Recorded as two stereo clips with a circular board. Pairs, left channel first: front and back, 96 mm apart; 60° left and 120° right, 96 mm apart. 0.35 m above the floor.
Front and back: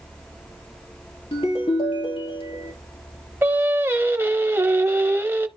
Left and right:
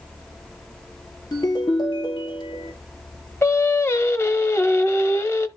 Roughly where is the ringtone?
Ahead.